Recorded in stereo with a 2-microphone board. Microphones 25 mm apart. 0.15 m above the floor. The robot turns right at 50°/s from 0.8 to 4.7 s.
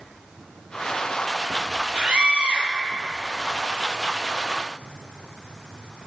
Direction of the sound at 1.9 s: 135° right.